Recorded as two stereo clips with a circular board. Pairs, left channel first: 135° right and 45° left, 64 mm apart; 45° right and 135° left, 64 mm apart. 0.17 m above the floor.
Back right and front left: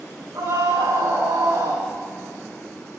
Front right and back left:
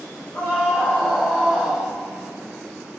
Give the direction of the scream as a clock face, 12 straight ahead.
11 o'clock.